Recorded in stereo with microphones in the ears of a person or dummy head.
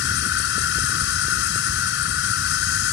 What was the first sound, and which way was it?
An insect, 65° left (ahead or behind).